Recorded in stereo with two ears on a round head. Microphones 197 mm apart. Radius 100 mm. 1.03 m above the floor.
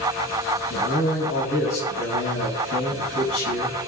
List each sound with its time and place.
0.7 s a man speaking: 60° left (ahead or behind), 6.5 m